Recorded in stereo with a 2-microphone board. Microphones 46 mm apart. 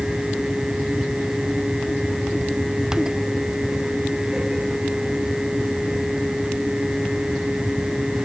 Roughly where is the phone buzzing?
No phone buzzing in this recording.